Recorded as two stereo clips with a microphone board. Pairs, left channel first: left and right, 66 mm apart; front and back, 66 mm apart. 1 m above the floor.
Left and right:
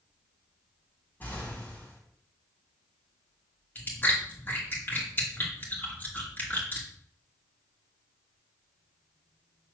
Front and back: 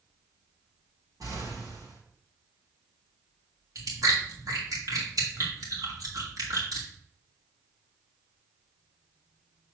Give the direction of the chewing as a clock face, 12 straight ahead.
7 o'clock.